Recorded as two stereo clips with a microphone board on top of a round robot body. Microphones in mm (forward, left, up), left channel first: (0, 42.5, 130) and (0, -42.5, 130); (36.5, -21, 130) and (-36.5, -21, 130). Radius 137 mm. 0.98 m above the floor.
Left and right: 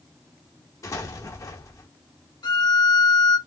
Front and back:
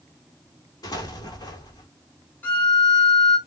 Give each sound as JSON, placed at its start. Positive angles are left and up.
{"t": 0.8, "sound": "an explosion", "azimuth_deg": 40, "distance_m": 1.4}
{"t": 2.4, "sound": "a violin", "azimuth_deg": 65, "distance_m": 2.5}